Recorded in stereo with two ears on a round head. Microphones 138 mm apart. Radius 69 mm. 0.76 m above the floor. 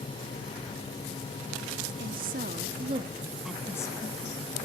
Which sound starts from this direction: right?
A woman speaking, at 2.0 s.